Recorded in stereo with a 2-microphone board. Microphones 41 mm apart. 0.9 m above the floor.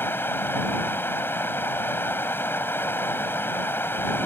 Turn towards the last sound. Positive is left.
turn(degrees=65)  # may be behind; listen again after turning